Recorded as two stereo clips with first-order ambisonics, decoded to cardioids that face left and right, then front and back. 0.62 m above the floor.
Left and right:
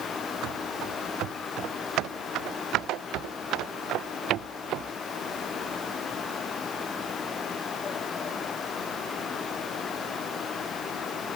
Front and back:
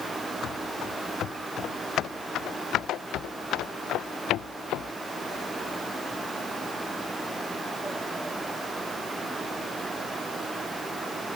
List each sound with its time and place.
0.4 s running footsteps: 50° right; by 4.9 s 45° right